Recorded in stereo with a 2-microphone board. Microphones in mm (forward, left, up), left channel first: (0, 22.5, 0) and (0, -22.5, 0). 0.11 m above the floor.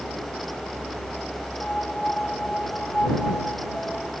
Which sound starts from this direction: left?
A piano, at 1.6 s.